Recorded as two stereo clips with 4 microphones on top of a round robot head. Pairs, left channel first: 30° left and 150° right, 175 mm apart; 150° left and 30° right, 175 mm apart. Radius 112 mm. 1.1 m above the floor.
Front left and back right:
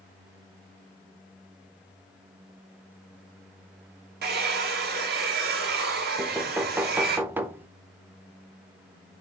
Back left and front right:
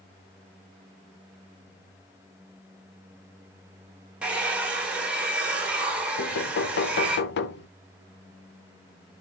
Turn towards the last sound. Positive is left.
turn(degrees=130)